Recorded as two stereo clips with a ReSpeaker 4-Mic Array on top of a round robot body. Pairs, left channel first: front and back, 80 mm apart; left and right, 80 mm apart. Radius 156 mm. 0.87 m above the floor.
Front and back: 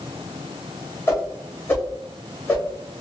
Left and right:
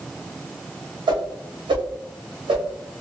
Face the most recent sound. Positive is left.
turn(degrees=-65)